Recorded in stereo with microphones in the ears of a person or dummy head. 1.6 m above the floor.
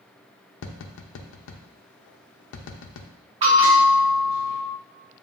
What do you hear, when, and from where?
0.6 s tapping: 75° left (ahead or behind), 0.5 m
3.4 s a bell: 30° right (ahead or behind), 1.8 m